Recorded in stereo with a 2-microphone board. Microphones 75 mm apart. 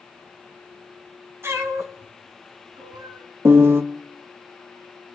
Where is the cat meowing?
40° right (ahead or behind), 1.3 m; by 3.2 s 70° right (ahead or behind), 2 m.